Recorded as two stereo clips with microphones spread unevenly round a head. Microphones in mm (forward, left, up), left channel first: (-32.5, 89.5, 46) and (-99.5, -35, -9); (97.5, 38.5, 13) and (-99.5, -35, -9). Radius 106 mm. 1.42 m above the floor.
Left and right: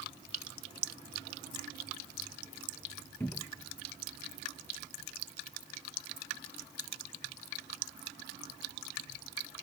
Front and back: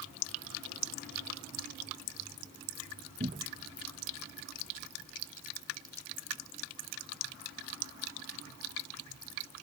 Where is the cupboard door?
140° left.